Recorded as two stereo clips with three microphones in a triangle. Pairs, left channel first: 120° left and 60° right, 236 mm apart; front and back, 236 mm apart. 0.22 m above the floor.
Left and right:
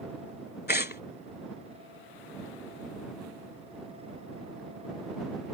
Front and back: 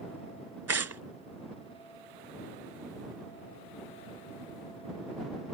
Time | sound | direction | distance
0.7 | tearing paper | 170° left | ?